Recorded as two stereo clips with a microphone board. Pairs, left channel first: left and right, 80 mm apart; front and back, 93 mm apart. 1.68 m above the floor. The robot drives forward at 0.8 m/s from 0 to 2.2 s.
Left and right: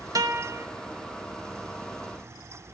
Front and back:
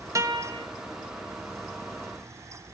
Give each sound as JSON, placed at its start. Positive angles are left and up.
{"t": 0.1, "sound": "a guitar", "azimuth_deg": -125, "distance_m": 0.9}